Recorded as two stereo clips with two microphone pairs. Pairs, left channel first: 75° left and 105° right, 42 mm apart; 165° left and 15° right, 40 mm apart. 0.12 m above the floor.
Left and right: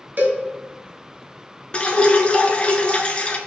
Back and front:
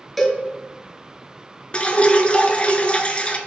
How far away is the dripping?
About 0.5 m.